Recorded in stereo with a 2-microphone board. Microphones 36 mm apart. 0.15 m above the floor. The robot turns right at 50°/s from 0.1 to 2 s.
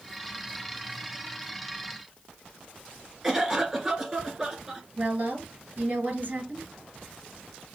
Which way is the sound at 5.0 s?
45° right (ahead or behind).